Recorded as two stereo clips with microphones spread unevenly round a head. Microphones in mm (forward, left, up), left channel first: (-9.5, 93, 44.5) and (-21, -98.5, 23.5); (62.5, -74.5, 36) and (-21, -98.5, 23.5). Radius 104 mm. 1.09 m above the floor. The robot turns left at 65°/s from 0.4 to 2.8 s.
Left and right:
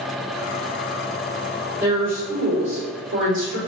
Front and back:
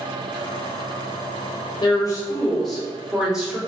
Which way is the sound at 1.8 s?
15° right.